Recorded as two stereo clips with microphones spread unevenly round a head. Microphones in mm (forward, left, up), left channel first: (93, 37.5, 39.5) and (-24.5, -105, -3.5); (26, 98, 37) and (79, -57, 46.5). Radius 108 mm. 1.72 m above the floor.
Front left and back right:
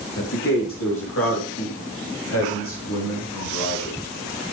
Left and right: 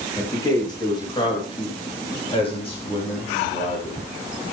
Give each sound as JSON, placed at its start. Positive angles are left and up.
{"t": 0.2, "sound": "a man speaking", "azimuth_deg": 40, "distance_m": 3.5}